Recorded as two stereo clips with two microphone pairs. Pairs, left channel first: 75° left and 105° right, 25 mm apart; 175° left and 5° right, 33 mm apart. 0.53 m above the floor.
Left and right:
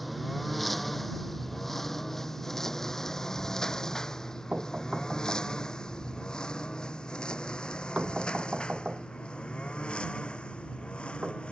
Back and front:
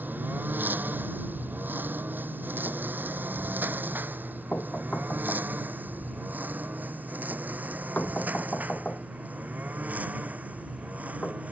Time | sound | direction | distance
0.0 | a lawn mower | 15° right | ?
4.5 | knocking | 145° right | ?